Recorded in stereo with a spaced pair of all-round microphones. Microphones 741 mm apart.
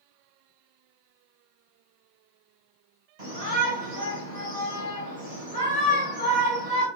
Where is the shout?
55° right (ahead or behind), 1.5 m.